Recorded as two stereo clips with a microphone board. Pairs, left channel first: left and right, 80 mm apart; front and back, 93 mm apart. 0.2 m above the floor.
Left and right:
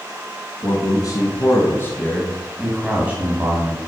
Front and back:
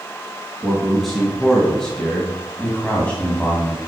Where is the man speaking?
90° left, 2.5 m; by 3.8 s 70° right, 1.9 m.